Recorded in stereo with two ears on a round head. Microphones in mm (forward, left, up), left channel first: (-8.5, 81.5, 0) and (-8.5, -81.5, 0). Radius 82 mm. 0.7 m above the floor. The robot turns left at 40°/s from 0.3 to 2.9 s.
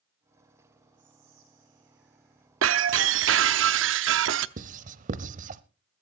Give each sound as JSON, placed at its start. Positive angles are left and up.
{"t": 1.0, "sound": "whispering", "azimuth_deg": -65, "distance_m": 2.5}
{"t": 2.6, "sound": "breaking glass", "side_deg": -80, "distance_m": 0.7}
{"t": 4.6, "sound": "writing", "side_deg": -45, "distance_m": 0.7}